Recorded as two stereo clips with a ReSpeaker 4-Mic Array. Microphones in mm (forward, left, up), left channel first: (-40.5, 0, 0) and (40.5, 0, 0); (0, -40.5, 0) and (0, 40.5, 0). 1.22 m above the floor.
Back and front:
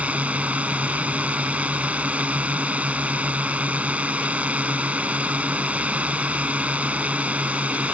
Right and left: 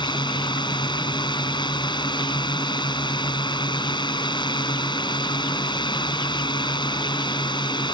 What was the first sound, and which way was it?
A drone, 70° right.